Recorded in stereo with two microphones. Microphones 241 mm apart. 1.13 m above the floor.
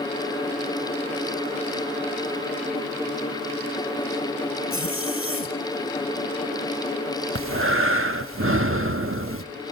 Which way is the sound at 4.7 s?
60° left (ahead or behind).